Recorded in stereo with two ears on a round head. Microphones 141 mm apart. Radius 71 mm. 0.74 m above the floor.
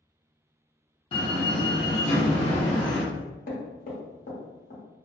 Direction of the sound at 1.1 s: 40° left (ahead or behind).